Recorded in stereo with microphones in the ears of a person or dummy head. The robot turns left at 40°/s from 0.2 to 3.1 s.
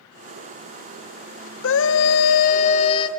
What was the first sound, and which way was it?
A scream, 85° left.